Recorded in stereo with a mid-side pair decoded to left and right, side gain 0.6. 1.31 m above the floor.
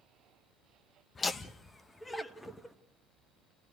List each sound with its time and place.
1.1 s laughter: 30° left, 1.4 m; by 2.8 s 10° left, 2 m